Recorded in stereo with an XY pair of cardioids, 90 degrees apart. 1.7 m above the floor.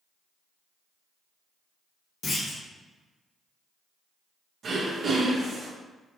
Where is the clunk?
60° left, 1.7 m.